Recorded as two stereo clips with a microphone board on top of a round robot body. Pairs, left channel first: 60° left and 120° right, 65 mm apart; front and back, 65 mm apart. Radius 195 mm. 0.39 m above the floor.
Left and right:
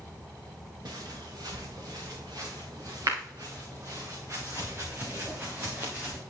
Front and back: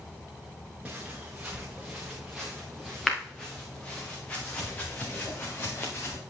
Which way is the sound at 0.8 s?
110° right.